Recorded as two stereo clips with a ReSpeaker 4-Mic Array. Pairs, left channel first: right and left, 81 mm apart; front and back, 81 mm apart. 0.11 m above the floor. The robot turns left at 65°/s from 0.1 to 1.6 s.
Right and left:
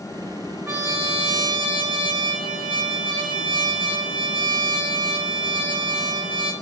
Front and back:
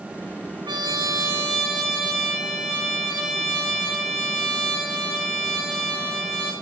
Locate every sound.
0.7 s a trumpet: 155° left, 1.8 m; by 6.5 s 95° left, 1.8 m